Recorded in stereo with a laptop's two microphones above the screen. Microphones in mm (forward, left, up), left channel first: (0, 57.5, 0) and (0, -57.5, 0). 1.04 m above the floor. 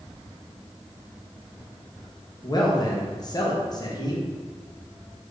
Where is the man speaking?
35° left (ahead or behind), 0.6 m.